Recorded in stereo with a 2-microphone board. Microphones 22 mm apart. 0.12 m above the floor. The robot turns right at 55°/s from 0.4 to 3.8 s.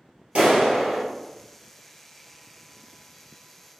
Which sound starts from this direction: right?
A clap, at 0.3 s.